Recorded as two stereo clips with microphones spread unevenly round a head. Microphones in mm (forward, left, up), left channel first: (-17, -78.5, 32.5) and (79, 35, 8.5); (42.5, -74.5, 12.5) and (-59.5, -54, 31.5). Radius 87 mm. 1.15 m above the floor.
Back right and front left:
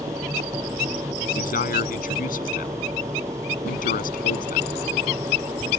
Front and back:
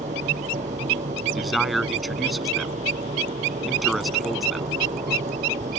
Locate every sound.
0.0 s a machine running: 125° left
1.4 s a man speaking: 100° right